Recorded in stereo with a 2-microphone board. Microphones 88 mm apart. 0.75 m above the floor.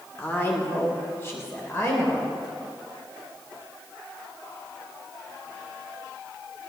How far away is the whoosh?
No whoosh in this recording.